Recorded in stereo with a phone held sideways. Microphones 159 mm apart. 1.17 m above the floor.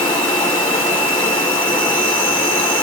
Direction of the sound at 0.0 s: 10° left (ahead or behind).